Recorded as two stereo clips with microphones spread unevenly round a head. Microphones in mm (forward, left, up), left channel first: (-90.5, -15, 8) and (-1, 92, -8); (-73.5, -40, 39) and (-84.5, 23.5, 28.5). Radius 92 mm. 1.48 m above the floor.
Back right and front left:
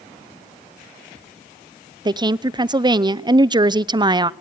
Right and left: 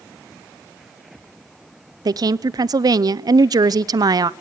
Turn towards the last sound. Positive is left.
turn(degrees=105)